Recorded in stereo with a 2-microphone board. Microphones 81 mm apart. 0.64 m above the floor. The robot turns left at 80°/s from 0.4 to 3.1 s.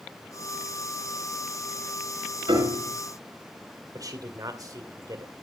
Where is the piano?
110° right, 4.5 m; by 2.9 s 150° right, 4.5 m.